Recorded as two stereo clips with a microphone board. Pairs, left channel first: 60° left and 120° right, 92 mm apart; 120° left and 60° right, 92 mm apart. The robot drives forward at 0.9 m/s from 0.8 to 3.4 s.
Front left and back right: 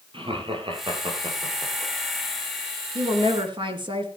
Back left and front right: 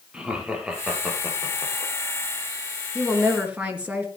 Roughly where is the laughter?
Behind right.